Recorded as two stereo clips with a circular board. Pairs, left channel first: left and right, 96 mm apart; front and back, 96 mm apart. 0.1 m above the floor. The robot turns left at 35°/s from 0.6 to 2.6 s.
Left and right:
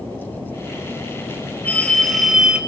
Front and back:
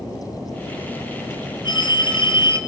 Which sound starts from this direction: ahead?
A phone ringing, at 1.6 s.